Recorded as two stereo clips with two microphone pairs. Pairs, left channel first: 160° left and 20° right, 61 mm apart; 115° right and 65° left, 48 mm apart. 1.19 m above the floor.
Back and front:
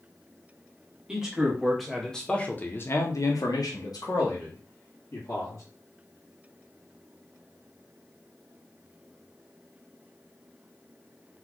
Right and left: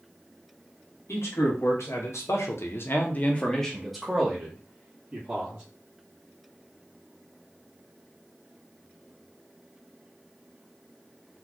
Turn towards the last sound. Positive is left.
turn(degrees=130)